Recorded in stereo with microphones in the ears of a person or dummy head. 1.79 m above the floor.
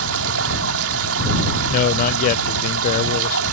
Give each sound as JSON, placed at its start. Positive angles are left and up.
{"t": 0.0, "sound": "running water", "side_deg": -80}
{"t": 1.7, "sound": "a man speaking", "side_deg": 45}